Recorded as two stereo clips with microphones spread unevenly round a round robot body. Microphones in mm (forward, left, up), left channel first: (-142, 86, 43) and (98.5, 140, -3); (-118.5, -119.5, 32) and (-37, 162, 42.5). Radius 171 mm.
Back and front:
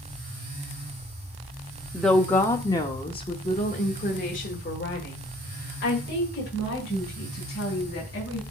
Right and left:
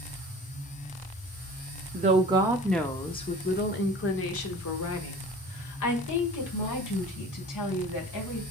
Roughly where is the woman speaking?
Left.